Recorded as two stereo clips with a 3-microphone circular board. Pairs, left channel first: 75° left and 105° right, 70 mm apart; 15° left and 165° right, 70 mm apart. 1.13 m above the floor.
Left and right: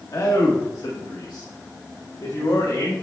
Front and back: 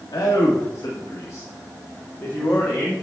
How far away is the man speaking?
About 1.6 m.